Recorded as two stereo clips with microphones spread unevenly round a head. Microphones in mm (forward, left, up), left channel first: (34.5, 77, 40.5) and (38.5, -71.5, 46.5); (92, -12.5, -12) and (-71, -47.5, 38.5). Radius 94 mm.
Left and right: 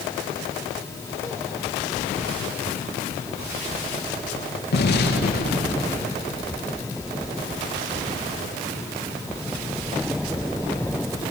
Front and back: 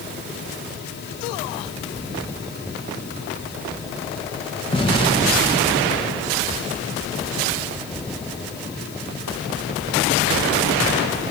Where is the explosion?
80° left, 1.7 m.